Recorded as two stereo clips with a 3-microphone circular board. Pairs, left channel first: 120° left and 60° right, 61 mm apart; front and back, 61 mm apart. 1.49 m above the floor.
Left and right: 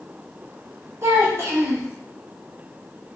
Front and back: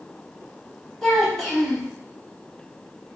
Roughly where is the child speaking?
Right.